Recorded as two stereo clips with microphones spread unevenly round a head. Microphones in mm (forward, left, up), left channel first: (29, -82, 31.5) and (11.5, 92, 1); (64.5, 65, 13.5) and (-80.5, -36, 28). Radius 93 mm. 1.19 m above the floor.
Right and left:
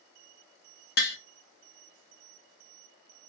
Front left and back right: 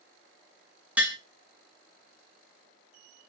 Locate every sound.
1.0 s tapping: 60° right, 0.7 m